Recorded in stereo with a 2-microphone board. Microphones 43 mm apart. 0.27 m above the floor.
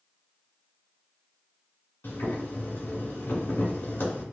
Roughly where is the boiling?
Left.